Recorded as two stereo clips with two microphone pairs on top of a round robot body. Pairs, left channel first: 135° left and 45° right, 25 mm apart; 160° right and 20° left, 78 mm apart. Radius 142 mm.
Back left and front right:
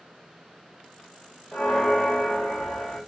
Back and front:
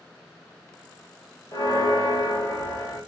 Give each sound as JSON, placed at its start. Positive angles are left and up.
{"t": 1.5, "sound": "a bell", "azimuth_deg": -135, "distance_m": 1.6}